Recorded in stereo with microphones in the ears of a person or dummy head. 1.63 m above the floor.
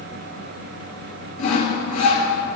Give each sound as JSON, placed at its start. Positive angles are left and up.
{"t": 1.4, "sound": "sawing", "side_deg": 50, "distance_m": 1.8}